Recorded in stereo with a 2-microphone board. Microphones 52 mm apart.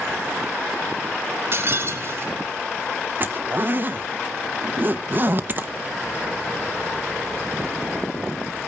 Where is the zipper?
40° right (ahead or behind), 0.8 m.